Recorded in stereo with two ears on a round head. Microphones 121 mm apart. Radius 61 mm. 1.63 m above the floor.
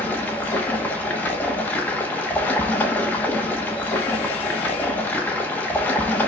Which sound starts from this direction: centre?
Running water, at 0.0 s.